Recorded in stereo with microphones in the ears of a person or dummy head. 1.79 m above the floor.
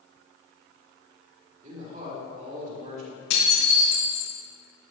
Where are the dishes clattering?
65° left (ahead or behind), 3 m.